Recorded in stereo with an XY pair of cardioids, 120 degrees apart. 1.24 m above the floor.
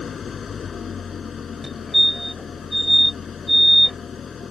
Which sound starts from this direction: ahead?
A fire alarm, at 1.6 s.